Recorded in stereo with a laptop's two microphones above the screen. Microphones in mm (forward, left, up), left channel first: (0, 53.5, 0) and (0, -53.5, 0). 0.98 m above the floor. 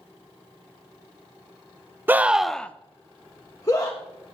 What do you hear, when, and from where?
2.1 s a scream: 20° right (ahead or behind), 0.6 m; by 4.0 s 35° left (ahead or behind), 1.3 m